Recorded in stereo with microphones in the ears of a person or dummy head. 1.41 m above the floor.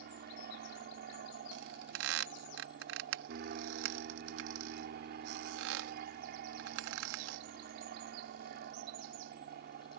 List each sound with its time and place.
0.0 s an aircraft: 55° right (ahead or behind)
1.5 s a squeak: 75° right (ahead or behind)